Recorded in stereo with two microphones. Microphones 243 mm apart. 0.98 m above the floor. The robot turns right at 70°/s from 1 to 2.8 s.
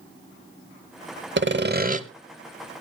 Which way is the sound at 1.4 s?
85° right.